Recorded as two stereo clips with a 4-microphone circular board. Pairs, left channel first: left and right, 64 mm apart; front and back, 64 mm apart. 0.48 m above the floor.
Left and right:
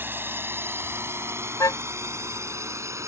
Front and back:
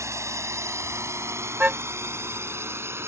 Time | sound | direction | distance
0.0 | a drone | 145° right | ?
1.6 | a car horn | 115° left | ?